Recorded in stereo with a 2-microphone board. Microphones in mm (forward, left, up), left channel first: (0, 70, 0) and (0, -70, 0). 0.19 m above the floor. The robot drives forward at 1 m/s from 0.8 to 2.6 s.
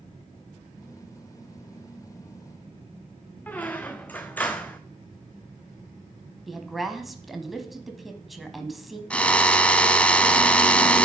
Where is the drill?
10° left (ahead or behind), 0.6 m.